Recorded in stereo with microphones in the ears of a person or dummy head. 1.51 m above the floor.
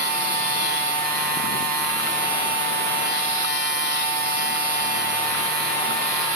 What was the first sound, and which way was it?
A machine running, 50° right (ahead or behind).